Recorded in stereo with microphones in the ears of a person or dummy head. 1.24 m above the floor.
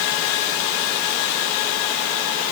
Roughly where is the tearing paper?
No tearing paper in this recording.